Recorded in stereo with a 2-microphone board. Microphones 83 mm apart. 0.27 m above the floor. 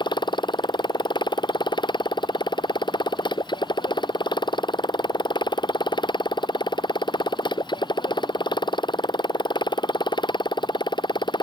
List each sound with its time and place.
0.0 s a motorcycle: 70° left (ahead or behind)